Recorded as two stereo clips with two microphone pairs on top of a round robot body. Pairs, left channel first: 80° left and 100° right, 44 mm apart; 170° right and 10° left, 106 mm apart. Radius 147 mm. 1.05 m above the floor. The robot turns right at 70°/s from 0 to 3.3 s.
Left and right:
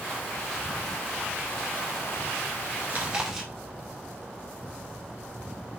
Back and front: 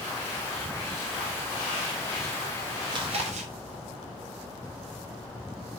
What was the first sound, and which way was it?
Chewing, 45° right.